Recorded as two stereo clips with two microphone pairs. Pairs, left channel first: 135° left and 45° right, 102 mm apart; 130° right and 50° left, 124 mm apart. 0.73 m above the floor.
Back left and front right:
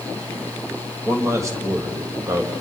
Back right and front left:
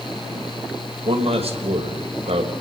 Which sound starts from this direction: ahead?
A man speaking, at 1.1 s.